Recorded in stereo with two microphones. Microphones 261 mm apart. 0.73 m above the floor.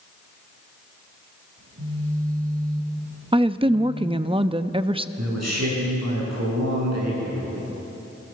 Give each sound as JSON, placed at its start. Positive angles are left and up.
{"t": 1.6, "sound": "a phone buzzing", "side_deg": -80, "distance_m": 9.0}
{"t": 3.3, "sound": "a woman speaking", "side_deg": -20, "distance_m": 0.5}
{"t": 5.2, "sound": "a man speaking", "side_deg": -80, "distance_m": 9.0}